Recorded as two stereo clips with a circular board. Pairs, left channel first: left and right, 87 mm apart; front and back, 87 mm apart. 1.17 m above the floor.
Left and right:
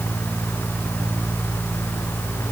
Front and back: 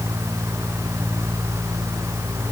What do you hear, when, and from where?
Only background noise.